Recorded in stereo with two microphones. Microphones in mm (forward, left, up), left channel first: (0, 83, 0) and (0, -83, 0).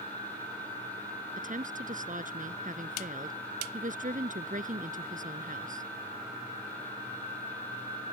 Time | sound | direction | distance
1.4 | a woman speaking | 50° right (ahead or behind) | ?